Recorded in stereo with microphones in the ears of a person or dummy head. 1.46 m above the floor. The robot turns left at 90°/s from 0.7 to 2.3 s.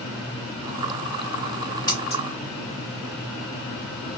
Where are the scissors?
25° left (ahead or behind), 1.4 m; by 2.2 s 50° left (ahead or behind), 1.4 m.